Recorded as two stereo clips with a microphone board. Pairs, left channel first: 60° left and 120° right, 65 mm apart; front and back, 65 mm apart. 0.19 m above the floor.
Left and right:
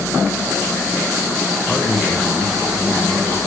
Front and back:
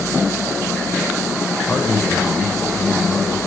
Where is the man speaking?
40° right, 1.0 m.